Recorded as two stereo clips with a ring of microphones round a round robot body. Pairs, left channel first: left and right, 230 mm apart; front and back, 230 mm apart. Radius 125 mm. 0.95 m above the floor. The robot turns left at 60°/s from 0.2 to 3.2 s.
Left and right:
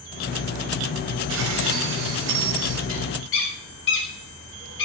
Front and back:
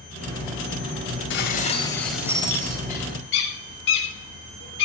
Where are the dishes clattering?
40° right, 3 m; by 2.8 s 130° right, 3 m.